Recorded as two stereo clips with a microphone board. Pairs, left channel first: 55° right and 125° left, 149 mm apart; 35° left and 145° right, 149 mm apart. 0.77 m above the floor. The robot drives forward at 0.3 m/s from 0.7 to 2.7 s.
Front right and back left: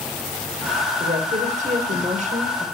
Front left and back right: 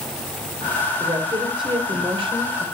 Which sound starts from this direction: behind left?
A woman speaking, at 1.0 s.